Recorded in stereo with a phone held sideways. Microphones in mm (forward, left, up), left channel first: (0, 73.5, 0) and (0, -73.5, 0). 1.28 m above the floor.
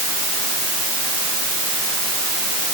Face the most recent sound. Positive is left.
No sound to turn to.